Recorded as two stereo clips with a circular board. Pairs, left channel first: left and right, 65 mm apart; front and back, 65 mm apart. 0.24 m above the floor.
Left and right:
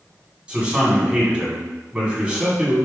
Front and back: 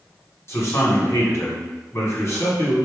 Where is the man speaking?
20° right, 1.6 m.